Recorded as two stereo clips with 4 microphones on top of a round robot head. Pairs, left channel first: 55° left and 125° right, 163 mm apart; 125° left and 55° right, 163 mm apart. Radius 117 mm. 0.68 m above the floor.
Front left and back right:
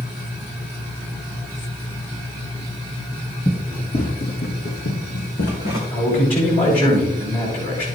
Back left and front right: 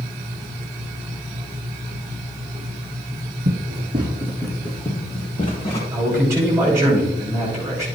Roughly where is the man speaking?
Ahead.